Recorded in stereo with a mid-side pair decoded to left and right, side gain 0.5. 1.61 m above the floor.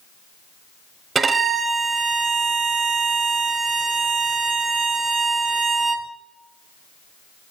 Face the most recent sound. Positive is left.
turn(degrees=-30)